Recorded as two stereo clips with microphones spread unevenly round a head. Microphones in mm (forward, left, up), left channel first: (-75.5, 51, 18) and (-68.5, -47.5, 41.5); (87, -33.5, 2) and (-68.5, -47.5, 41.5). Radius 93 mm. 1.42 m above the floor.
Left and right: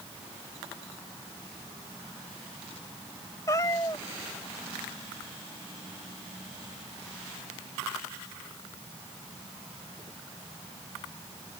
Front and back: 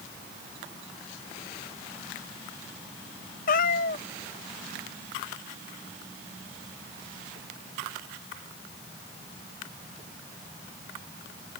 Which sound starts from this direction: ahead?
A cat meowing, at 3.5 s.